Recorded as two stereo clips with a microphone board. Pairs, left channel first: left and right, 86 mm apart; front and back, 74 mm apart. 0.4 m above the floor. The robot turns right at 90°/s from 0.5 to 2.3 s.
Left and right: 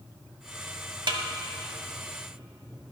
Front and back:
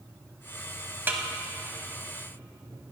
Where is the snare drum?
115° right, 0.8 m; by 1.2 s 100° right, 0.8 m.